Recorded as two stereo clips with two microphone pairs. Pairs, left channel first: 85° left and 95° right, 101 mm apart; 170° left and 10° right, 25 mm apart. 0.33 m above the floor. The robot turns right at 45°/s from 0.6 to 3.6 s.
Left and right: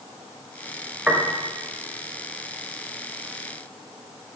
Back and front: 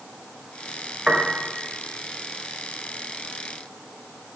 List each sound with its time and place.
1.1 s a piano: 25° right, 0.7 m; by 1.4 s 10° right, 0.7 m